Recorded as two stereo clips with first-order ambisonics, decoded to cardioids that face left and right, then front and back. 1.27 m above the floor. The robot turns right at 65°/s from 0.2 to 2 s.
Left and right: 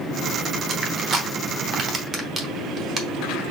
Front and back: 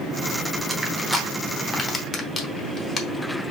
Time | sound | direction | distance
0.7 | crushing | 140° right | 1.0 m